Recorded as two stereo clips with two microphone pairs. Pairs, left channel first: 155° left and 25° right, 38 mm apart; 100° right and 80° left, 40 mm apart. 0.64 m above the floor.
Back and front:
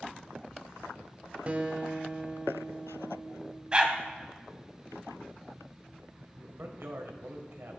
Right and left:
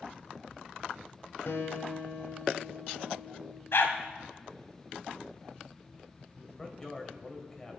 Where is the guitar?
80° right, 1.6 m.